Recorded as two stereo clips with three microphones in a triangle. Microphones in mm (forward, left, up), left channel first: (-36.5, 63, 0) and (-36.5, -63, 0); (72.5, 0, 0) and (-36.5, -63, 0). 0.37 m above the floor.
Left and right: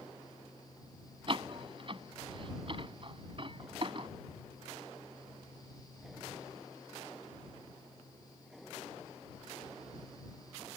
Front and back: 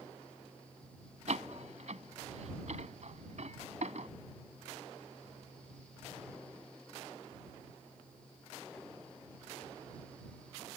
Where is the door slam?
130° right.